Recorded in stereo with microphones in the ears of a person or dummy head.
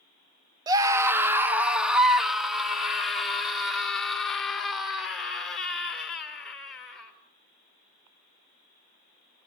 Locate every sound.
0.7 s a scream: 20° right (ahead or behind), 1.0 m; by 7.1 s 5° left (ahead or behind), 6 m